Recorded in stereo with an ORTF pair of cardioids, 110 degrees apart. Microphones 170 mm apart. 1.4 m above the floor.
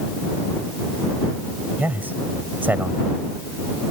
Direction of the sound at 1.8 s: 10° right.